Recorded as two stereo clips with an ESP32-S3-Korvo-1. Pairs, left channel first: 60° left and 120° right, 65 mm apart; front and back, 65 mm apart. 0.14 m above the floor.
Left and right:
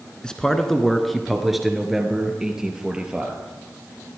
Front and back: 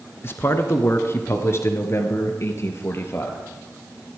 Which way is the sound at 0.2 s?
10° right.